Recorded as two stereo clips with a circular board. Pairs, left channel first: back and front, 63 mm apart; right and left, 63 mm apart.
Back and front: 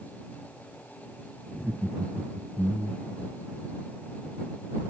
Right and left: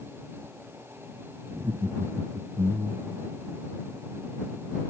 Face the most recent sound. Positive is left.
turn(degrees=80)